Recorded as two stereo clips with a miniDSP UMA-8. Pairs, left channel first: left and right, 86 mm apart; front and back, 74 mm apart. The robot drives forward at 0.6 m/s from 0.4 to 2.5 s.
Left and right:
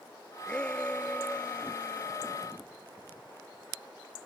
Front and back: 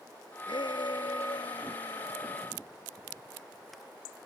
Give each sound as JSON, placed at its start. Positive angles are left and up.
{"t": 0.5, "sound": "a shout", "azimuth_deg": 10}